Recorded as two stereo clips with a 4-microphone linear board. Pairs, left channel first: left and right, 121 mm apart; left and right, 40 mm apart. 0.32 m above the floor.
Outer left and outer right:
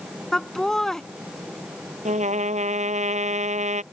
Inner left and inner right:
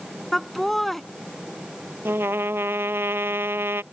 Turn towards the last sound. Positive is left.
turn(degrees=-75)  # may be behind; listen again after turning